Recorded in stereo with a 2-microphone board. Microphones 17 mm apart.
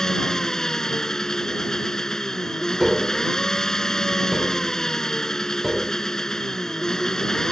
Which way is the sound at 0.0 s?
40° left (ahead or behind).